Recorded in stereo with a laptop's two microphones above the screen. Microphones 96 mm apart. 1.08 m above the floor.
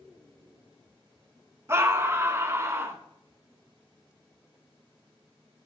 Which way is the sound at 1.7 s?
25° right (ahead or behind).